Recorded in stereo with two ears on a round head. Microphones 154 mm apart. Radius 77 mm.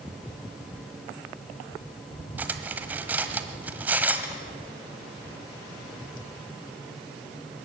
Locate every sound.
2.4 s cutlery clinking: 10° right (ahead or behind), 1.3 m